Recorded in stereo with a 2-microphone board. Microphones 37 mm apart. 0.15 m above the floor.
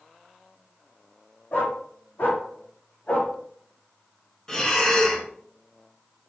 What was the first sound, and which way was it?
A dog barking, 70° left (ahead or behind).